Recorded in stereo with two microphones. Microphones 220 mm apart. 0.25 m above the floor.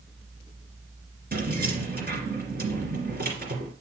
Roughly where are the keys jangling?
Right.